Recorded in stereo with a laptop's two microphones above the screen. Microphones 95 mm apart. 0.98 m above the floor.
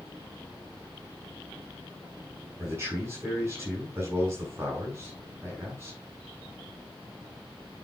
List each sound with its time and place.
2.6 s a man speaking: 25° right (ahead or behind), 8 m